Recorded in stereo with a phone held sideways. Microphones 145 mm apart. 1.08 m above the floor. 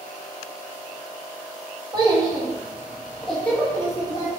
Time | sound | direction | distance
1.9 | a child speaking | 30° right (ahead or behind) | 1.1 m